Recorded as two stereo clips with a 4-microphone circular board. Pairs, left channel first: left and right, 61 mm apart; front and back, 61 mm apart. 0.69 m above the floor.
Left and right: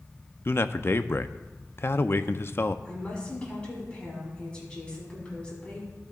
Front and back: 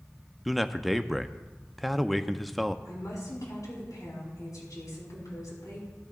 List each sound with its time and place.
0.5 s a man speaking: 90° left, 0.6 m
2.9 s a woman speaking: 15° left, 6.5 m